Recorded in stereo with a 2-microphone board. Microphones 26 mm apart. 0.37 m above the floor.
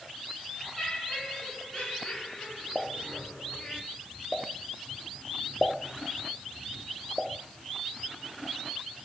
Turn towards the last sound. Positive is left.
turn(degrees=-5)  # may be behind; listen again after turning